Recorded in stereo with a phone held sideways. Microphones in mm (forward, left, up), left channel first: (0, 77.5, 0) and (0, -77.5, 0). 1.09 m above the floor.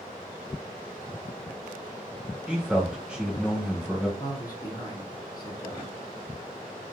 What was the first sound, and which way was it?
A man speaking, 5° right (ahead or behind).